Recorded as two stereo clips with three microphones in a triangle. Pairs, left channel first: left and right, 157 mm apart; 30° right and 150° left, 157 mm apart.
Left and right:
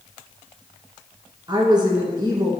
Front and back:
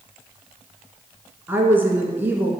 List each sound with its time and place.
1.5 s a woman speaking: 135° right, 1.4 m